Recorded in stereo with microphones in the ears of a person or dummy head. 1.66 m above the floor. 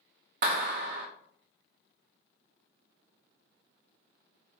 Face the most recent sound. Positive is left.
turn(degrees=-50)  # may be behind; listen again after turning